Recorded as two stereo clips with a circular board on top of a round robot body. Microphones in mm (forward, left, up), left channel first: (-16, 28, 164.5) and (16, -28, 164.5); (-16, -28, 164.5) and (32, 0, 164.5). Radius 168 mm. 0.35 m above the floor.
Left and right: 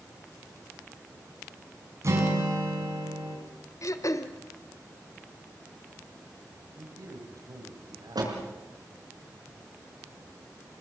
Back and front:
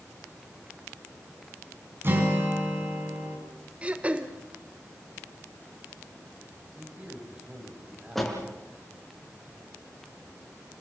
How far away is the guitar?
About 5.5 m.